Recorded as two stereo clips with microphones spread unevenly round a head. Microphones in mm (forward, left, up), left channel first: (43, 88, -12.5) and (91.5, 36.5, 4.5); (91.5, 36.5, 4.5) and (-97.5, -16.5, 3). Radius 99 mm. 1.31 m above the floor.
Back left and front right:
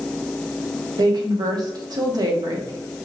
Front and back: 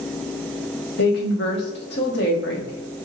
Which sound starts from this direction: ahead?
A woman speaking, at 1.0 s.